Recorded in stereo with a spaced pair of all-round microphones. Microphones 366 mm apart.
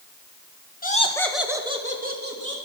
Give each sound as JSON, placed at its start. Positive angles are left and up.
{"t": 0.8, "sound": "laughter", "side_deg": 25, "distance_m": 1.6}